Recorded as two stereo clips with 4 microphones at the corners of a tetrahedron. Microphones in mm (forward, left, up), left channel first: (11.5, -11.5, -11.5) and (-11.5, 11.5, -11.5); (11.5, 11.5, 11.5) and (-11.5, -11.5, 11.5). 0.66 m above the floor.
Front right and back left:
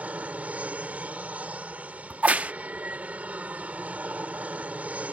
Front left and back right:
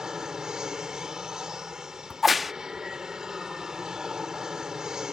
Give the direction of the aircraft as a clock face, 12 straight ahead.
7 o'clock.